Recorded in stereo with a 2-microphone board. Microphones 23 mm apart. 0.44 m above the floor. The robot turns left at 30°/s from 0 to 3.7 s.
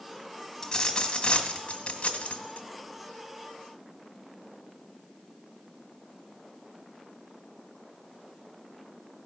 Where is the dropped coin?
160° left, 1.5 m; by 2.7 s 100° left, 1.5 m.